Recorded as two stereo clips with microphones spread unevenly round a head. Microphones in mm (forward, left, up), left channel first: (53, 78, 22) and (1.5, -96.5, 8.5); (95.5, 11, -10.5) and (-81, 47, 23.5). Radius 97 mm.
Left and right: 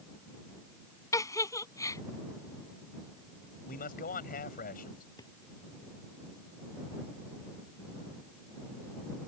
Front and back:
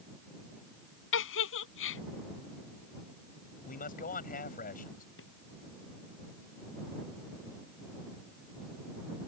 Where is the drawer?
5° left.